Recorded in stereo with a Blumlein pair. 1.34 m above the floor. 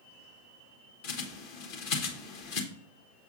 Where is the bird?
45° left, 1.1 m.